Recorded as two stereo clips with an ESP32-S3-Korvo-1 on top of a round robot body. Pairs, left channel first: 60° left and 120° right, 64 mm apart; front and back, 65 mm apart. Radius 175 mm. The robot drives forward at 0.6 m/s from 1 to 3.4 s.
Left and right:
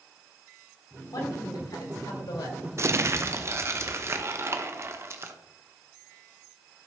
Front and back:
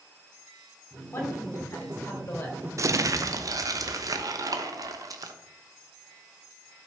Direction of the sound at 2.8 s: 155° right.